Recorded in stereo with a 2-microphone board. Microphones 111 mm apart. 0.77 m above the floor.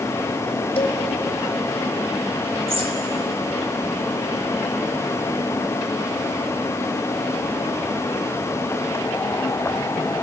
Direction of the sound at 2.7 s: 55° right (ahead or behind).